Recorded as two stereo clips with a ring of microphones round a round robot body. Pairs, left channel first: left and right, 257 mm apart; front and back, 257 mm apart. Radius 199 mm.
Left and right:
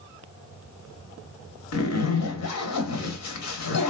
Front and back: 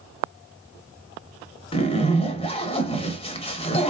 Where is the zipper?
70° left, 0.8 m.